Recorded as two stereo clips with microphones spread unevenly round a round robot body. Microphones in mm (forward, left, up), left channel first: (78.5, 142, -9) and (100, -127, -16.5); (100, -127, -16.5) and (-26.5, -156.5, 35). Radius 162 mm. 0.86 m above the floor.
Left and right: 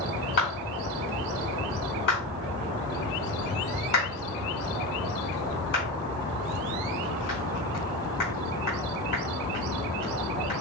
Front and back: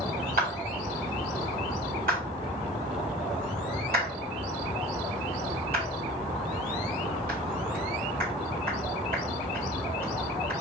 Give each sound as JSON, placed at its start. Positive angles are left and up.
{"t": 0.4, "sound": "a clap", "azimuth_deg": 155, "distance_m": 5.5}